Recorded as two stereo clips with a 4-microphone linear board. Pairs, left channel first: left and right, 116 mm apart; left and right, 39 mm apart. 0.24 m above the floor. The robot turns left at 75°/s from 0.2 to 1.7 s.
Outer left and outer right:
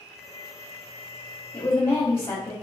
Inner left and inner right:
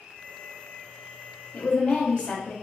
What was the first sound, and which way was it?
A woman speaking, 20° left (ahead or behind).